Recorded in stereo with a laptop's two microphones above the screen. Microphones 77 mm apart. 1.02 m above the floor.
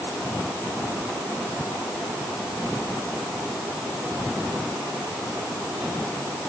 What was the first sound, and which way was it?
Only background noise.